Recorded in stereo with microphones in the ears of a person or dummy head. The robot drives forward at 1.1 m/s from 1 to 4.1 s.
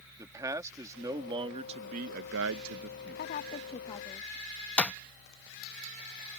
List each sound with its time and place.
0.2 s a man speaking: 20° right (ahead or behind); by 3.2 s 45° right (ahead or behind)
3.2 s a woman speaking: 55° left (ahead or behind); by 4.4 s 25° left (ahead or behind)
4.8 s a clap: 10° left (ahead or behind)